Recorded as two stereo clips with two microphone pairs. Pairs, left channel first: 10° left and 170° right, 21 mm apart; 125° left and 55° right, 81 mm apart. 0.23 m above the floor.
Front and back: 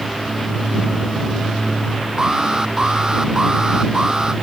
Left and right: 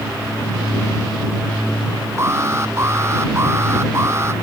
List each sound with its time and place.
2.2 s an alarm: 115° right